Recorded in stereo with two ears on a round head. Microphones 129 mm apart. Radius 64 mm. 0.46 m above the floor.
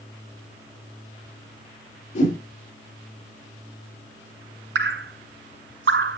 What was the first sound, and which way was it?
A whoosh, 55° left (ahead or behind).